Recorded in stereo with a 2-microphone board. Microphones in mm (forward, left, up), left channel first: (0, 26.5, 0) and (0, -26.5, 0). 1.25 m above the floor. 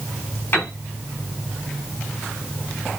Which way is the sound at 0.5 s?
40° left (ahead or behind).